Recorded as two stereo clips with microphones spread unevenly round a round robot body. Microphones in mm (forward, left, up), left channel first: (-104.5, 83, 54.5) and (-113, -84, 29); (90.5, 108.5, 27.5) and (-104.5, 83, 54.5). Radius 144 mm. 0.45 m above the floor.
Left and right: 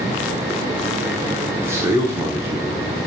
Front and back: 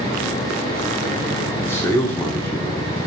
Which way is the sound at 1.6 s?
50° right.